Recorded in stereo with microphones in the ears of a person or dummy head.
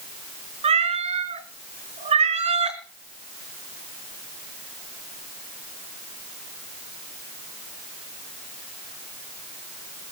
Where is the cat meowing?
30° right (ahead or behind), 4 m.